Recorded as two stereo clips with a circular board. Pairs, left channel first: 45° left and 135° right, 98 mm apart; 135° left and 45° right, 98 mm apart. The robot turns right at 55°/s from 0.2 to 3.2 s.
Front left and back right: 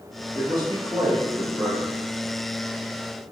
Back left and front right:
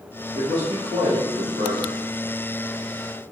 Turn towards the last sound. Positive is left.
turn(degrees=35)